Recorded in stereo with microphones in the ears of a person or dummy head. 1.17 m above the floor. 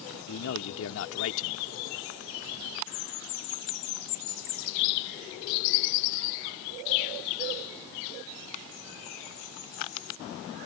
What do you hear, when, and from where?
0.3 s a man speaking: 80° left